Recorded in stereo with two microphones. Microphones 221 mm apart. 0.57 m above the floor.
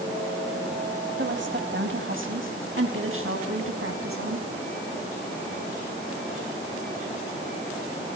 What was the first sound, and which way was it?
A woman speaking, 55° right (ahead or behind).